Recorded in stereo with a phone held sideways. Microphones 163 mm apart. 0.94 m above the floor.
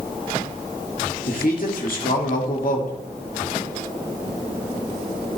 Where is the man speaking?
65° left (ahead or behind), 2.5 m.